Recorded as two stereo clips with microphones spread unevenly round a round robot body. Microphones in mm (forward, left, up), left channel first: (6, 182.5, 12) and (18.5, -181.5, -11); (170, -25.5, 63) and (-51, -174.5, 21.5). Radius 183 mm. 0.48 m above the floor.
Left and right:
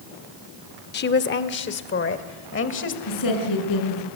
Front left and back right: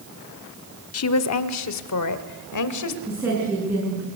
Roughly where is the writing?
No writing in this recording.